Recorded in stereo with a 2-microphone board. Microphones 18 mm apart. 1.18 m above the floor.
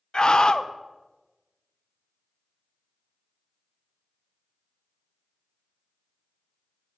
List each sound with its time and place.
0.1 s a scream: 45° left (ahead or behind), 0.5 m